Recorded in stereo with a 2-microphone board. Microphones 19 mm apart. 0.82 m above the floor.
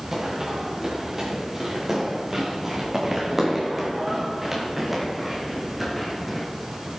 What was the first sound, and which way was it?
Running footsteps, 25° right (ahead or behind).